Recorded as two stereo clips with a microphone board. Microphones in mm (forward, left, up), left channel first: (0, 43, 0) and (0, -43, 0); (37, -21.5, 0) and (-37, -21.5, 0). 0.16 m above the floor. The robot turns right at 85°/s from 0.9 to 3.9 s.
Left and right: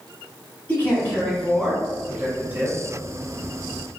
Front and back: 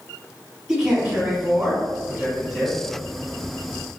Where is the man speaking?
115° left, 1.4 m; by 2.8 s 85° right, 1.4 m.